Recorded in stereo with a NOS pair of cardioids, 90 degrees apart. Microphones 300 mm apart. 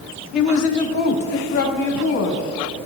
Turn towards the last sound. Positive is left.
turn(degrees=55)